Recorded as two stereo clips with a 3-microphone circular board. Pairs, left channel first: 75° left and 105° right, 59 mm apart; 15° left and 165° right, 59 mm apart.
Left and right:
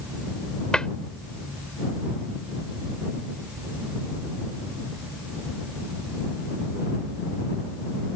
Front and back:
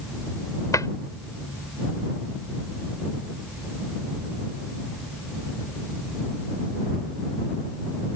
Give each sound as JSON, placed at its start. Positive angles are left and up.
{"t": 0.7, "sound": "a cupboard door", "azimuth_deg": 0}